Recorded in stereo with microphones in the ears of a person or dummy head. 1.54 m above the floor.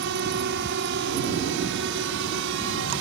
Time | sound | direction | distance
0.0 | a drone | 60° right (ahead or behind) | ?